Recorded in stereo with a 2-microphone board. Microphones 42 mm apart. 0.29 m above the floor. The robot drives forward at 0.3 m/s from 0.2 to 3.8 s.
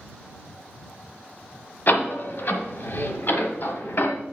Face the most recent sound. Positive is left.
turn(degrees=55)  # may be behind; listen again after turning